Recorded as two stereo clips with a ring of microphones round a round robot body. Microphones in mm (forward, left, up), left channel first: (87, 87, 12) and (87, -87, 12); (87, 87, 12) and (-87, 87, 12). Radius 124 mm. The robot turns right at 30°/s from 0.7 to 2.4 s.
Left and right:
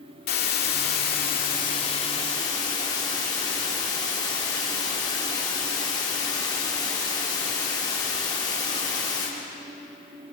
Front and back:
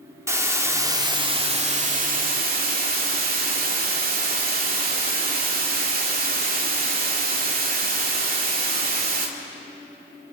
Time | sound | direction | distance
0.3 | a hiss | 110° left | 2 m